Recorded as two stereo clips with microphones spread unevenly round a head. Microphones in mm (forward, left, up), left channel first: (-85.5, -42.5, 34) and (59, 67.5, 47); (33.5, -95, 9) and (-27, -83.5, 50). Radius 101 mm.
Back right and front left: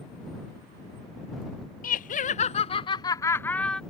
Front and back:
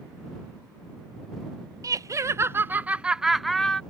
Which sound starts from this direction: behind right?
Laughter, at 1.8 s.